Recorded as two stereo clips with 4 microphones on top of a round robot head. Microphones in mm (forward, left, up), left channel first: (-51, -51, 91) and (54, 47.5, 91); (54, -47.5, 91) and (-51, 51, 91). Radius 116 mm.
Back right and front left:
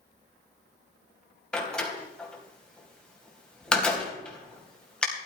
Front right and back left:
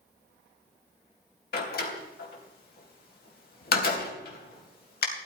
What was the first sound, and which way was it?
A door slam, 55° right.